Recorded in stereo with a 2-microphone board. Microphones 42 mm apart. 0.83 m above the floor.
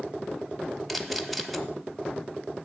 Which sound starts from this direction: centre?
A camera shutter, at 0.9 s.